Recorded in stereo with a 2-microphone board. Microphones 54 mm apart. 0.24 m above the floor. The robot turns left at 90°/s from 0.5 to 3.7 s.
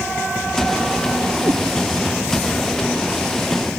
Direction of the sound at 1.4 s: 70° right (ahead or behind).